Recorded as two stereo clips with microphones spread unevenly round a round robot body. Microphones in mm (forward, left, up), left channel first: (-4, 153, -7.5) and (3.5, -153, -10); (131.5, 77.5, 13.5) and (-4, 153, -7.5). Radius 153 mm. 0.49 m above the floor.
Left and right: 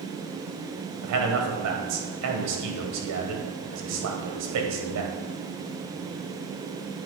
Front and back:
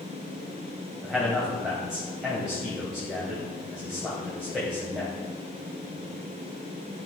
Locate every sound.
1.0 s a man speaking: 125° right, 2 m